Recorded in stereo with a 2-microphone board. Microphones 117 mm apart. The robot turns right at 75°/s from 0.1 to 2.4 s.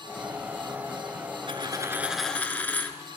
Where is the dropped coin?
55° right, 0.7 m; by 3.0 s 15° left, 0.7 m.